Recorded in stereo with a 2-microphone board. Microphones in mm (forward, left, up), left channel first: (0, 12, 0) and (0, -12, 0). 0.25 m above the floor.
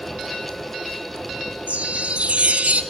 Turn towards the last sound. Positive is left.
turn(degrees=-75)  # may be behind; listen again after turning